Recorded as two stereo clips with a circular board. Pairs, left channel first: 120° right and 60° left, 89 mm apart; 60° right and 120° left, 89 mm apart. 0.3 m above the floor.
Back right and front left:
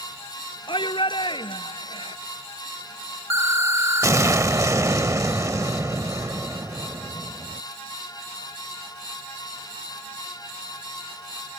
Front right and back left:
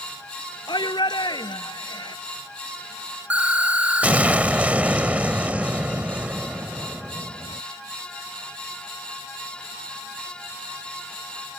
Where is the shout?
95° right.